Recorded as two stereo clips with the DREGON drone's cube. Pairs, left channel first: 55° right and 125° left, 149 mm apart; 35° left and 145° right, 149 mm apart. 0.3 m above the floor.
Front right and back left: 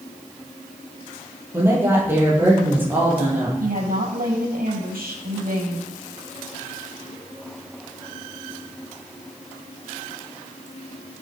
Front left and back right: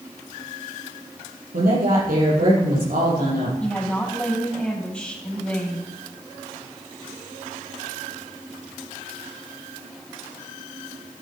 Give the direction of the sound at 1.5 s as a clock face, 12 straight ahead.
5 o'clock.